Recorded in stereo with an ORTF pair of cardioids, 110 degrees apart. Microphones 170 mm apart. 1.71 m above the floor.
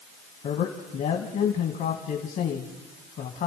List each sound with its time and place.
0.4 s a man speaking: 60° left, 2.0 m